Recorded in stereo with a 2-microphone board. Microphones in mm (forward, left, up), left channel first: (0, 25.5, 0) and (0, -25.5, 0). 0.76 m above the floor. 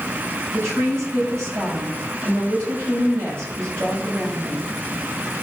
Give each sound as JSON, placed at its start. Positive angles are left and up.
{"t": 0.5, "sound": "a woman speaking", "side_deg": -60, "distance_m": 4.5}